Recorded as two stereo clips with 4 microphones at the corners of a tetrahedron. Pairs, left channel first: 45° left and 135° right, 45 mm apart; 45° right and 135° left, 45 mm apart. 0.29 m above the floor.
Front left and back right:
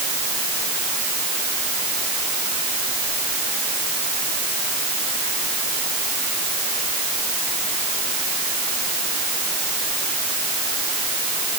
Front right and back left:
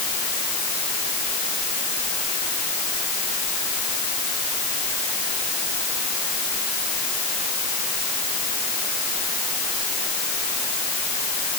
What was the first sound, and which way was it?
Only background noise.